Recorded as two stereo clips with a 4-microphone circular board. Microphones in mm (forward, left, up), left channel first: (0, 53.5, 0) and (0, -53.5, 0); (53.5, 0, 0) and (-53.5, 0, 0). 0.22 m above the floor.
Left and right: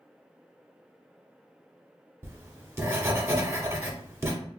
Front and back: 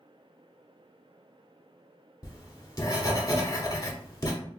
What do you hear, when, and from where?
2.2 s writing: 35° right, 0.9 m